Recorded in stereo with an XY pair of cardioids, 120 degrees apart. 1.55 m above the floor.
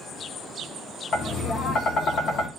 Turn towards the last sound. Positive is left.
turn(degrees=50)